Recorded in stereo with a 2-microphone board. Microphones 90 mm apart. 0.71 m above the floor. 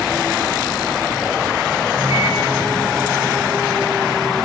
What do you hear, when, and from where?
1.9 s a microwave: 60° right (ahead or behind), 8.5 m